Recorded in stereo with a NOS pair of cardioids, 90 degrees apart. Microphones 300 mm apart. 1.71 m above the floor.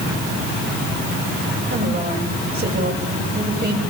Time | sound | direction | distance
1.7 | a woman speaking | 35° right | 8.5 m